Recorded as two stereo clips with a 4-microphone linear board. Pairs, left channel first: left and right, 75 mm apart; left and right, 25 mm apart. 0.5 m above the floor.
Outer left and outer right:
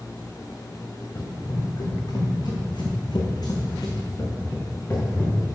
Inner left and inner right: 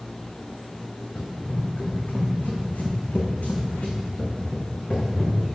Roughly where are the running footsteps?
Left.